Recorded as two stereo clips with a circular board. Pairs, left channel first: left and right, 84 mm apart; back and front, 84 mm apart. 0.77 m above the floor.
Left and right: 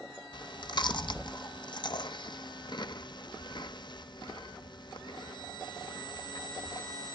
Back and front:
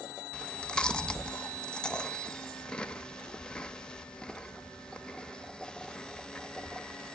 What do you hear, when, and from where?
0.3 s chewing: 105° left, 0.6 m